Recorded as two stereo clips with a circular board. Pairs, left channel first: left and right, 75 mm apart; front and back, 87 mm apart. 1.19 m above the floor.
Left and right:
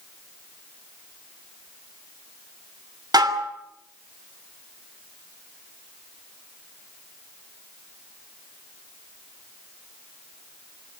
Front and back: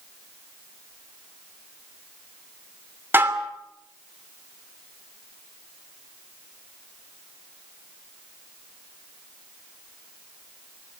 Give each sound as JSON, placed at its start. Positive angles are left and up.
{"t": 3.1, "sound": "dishes clattering", "azimuth_deg": -115, "distance_m": 2.5}